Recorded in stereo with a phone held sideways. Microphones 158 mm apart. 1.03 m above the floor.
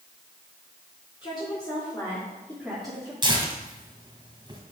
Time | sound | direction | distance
1.2 | a woman speaking | 30° left (ahead or behind) | 3.5 m
3.2 | tearing paper | 30° right (ahead or behind) | 2.0 m